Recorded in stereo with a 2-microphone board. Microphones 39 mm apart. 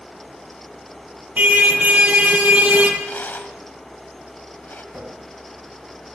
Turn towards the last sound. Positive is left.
turn(degrees=-50)  # may be behind; listen again after turning